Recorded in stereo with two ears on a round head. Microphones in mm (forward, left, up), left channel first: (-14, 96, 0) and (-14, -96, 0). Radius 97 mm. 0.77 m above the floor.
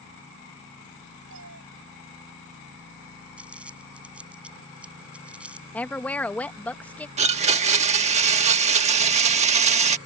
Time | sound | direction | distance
1.3 | a cat meowing | 60° right (ahead or behind) | ?
3.4 | crumpling | 5° right (ahead or behind) | ?
5.7 | a woman speaking | 5° left (ahead or behind) | ?
7.2 | a blender | 30° right (ahead or behind) | ?